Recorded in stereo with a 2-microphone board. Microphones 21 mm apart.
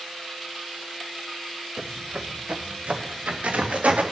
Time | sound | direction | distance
1.8 | footsteps | 60° right (ahead or behind) | 1.1 m